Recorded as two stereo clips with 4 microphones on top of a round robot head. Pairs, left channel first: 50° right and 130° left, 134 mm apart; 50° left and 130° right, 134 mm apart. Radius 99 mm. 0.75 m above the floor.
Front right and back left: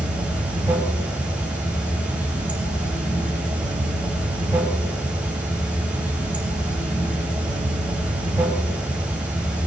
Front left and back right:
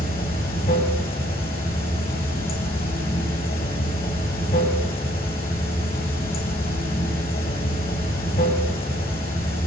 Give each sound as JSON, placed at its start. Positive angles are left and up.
{"t": 0.0, "sound": "running water", "azimuth_deg": 50, "distance_m": 3.5}